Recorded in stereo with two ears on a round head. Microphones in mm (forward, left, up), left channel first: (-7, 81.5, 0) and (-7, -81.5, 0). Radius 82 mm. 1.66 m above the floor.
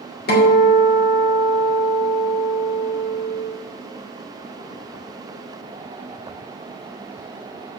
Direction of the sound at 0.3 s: 55° left (ahead or behind).